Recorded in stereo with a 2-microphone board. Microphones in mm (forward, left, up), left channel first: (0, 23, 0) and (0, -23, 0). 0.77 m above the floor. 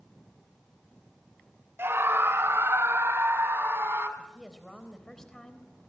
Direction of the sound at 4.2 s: 15° left (ahead or behind).